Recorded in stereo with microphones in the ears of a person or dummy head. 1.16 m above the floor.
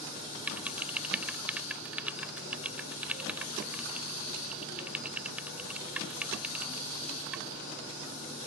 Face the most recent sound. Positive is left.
turn(degrees=-5)  # may be behind; listen again after turning